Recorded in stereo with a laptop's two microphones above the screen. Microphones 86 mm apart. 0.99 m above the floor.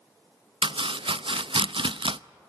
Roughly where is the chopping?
Right.